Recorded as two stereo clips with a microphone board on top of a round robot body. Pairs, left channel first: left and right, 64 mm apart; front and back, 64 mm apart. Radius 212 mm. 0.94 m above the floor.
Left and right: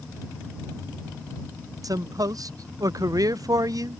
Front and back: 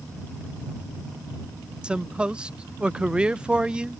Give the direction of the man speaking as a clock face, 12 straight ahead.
4 o'clock.